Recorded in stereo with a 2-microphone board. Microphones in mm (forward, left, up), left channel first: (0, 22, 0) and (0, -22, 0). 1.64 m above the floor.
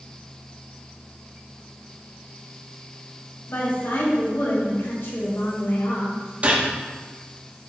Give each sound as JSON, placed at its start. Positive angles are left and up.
{"t": 3.5, "sound": "a woman speaking", "side_deg": 70, "distance_m": 2.5}
{"t": 6.4, "sound": "a gunshot", "side_deg": -35, "distance_m": 1.6}